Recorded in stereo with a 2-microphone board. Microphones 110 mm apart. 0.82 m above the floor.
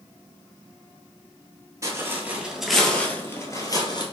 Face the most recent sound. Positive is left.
turn(degrees=40)  # may be behind; listen again after turning